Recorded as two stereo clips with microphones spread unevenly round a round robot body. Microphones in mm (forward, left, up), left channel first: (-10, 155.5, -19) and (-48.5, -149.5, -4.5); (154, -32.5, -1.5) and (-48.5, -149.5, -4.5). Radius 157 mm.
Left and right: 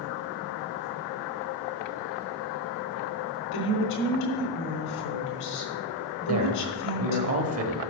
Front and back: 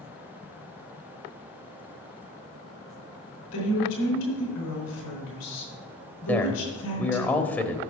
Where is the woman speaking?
70° left, 3.5 m.